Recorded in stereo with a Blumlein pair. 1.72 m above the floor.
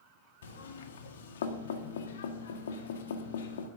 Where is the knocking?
60° left, 1.6 m.